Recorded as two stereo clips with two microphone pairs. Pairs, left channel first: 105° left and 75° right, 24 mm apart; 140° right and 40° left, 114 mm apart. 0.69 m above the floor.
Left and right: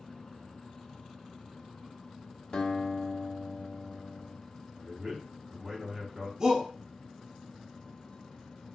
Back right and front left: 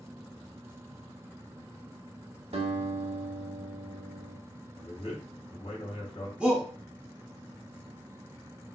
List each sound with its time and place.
2.5 s a guitar: 60° left, 1.1 m
4.8 s a man speaking: 145° right, 1.9 m
6.4 s a shout: 35° right, 0.9 m